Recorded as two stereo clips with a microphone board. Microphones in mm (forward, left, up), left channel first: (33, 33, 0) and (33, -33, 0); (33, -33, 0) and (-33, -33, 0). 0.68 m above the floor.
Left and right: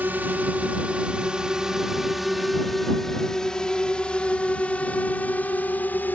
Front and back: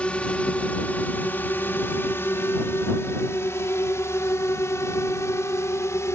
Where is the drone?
60° right; by 6.2 s 35° left.